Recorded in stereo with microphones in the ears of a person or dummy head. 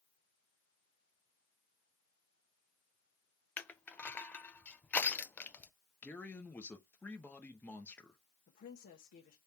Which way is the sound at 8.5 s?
40° left (ahead or behind).